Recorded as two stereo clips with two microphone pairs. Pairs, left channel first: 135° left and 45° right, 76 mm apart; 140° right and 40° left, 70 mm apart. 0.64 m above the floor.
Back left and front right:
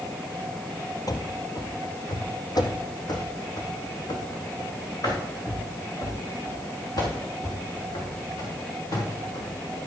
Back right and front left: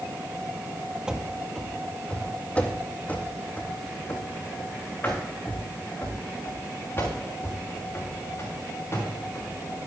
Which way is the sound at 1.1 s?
115° left.